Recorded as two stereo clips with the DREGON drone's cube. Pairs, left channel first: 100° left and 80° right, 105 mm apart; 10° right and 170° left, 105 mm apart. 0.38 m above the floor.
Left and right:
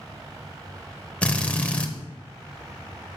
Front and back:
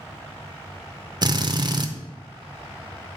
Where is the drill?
170° left, 0.6 m.